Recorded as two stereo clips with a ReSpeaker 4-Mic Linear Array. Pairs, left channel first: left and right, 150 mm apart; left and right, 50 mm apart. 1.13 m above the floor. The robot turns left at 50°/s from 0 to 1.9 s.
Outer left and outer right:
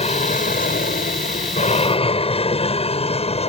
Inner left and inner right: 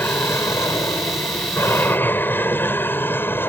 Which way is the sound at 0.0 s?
45° left (ahead or behind).